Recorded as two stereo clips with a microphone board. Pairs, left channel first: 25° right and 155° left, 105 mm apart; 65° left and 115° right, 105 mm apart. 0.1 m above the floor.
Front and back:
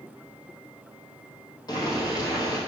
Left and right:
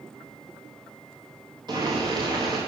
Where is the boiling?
70° right, 2.5 m.